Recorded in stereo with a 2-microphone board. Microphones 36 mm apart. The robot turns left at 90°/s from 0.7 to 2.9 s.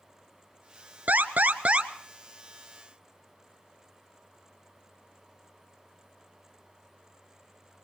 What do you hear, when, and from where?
1.1 s an alarm: 70° right, 1.2 m; by 1.9 s 145° right, 1.2 m